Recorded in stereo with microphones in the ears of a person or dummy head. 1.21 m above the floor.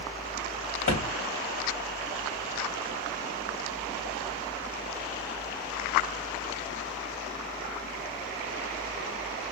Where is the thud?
50° left (ahead or behind), 2.5 m.